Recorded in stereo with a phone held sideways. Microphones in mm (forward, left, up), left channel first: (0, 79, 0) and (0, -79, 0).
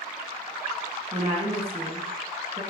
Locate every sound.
1.1 s a woman speaking: 35° right (ahead or behind), 0.9 m